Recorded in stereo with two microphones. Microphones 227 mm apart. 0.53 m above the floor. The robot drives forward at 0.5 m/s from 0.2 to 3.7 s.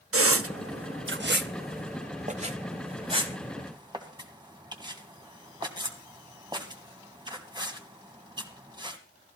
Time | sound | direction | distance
0.1 | a squeak | 75° right (ahead or behind) | 0.6 m